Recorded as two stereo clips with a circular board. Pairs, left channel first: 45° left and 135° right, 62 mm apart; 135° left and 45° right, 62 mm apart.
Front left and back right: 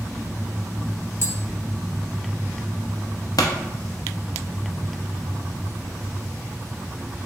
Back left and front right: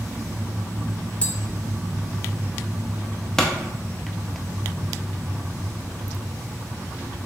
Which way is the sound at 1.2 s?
75° left.